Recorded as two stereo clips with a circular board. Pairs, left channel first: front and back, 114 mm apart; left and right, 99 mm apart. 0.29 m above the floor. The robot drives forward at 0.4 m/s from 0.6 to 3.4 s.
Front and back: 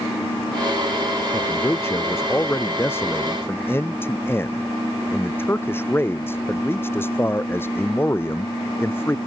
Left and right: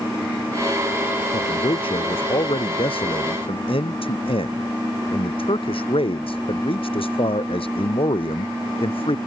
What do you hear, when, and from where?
1.3 s a man speaking: 65° left; by 9.2 s 70° left